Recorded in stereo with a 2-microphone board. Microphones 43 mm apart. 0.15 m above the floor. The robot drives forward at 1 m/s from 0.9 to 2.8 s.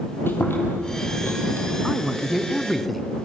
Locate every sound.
0.3 s chewing: 65° left (ahead or behind), 4.5 m; by 1.7 s 60° left (ahead or behind), 4.5 m
1.8 s a man speaking: centre (ahead or behind), 1.4 m